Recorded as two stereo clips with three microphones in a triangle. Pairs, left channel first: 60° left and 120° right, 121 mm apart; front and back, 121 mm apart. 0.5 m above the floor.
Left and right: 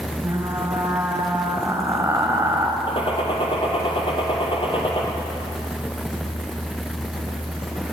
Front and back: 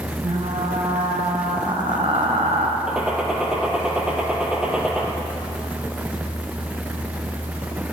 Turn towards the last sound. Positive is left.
turn(degrees=95)